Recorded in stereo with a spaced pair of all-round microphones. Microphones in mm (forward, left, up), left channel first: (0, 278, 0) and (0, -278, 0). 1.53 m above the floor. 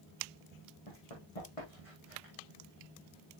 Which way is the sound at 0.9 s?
70° left (ahead or behind).